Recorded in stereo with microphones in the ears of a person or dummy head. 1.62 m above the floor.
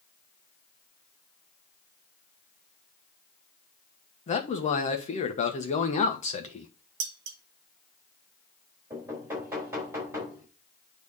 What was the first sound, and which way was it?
A man speaking, 35° left (ahead or behind).